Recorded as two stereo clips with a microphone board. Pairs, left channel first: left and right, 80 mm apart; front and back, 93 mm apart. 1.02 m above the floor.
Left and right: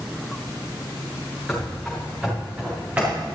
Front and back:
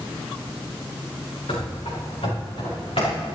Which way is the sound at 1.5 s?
Straight ahead.